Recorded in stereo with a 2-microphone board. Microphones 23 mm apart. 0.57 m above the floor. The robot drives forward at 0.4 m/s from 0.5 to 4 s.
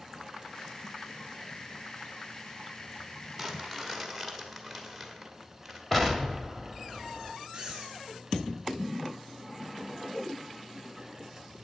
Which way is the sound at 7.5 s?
20° right (ahead or behind).